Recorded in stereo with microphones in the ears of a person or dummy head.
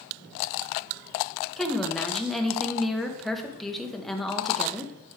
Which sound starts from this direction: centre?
A woman speaking, at 1.6 s.